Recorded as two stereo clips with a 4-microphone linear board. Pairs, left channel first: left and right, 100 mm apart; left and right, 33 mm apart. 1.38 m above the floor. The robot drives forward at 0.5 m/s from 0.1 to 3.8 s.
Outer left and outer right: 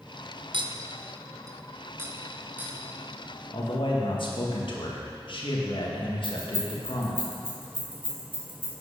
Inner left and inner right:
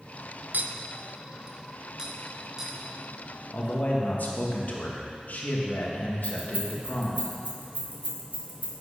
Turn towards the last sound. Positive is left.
turn(degrees=-65)  # may be behind; listen again after turning